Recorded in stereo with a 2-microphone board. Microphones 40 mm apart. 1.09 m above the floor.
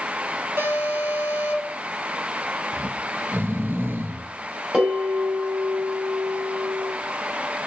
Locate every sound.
0.6 s an alarm: 85° right, 5.5 m
2.7 s snoring: 70° right (ahead or behind), 0.9 m
4.7 s a bell: 15° right (ahead or behind), 5 m